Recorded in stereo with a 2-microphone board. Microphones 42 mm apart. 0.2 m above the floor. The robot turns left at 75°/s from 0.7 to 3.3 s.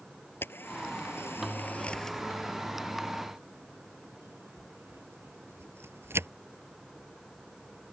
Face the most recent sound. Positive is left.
turn(degrees=-70)  # may be behind; listen again after turning